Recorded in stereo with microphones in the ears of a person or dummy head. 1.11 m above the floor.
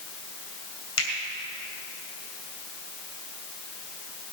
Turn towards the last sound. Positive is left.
turn(degrees=90)